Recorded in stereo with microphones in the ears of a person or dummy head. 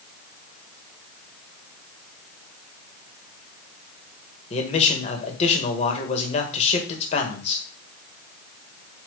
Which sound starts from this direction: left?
A man speaking, at 4.5 s.